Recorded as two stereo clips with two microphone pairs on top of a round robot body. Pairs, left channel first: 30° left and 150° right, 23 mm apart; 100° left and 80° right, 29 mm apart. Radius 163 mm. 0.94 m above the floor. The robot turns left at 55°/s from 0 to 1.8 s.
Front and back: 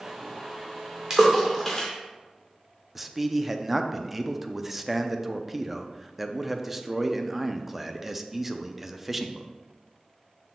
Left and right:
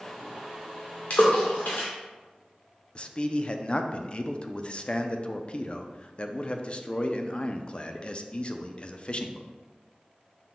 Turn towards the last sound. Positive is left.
turn(degrees=115)